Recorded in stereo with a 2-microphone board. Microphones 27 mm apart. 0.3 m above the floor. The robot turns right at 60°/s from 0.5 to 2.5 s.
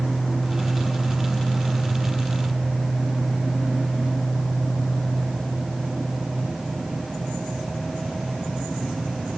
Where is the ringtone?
I don't hear a ringtone.